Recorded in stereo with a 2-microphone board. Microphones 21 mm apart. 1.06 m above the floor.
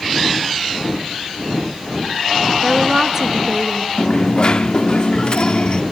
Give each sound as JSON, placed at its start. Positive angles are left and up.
{"t": 2.6, "sound": "a woman speaking", "side_deg": -25, "distance_m": 1.6}
{"t": 4.0, "sound": "a dropped coin", "side_deg": 40, "distance_m": 0.8}